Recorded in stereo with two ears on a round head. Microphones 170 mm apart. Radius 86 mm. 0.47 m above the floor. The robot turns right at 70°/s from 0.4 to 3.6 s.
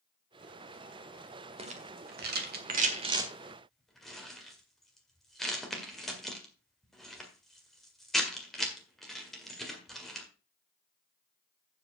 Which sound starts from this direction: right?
A rattle, at 1.6 s.